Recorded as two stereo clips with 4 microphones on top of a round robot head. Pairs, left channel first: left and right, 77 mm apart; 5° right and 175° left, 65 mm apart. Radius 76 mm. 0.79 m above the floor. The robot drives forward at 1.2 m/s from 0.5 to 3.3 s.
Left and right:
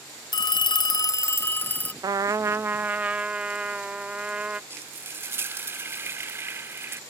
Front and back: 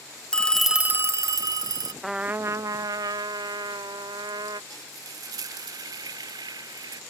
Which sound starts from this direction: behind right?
Frying, at 4.7 s.